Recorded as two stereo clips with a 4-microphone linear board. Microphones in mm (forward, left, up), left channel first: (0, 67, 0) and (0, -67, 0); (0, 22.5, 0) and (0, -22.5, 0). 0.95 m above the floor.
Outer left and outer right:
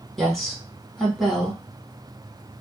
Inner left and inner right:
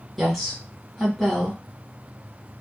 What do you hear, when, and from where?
0.2 s a woman speaking: centre (ahead or behind), 1.4 m